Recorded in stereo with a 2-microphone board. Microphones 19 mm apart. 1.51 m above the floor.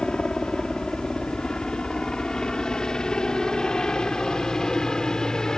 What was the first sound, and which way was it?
A helicopter, 60° left (ahead or behind).